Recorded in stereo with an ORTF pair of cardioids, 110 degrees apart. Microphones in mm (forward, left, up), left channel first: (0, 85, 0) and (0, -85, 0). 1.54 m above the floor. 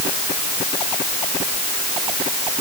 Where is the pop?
I don't hear a pop.